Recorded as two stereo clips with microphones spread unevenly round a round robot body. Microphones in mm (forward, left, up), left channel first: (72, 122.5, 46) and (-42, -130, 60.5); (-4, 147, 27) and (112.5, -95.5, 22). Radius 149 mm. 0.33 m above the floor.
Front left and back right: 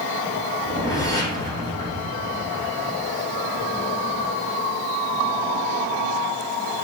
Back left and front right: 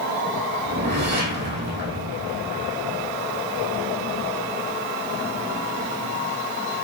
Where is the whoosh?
10° right, 4.5 m.